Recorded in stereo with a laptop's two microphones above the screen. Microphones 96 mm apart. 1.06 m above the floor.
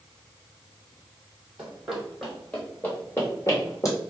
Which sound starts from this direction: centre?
Running footsteps, at 1.6 s.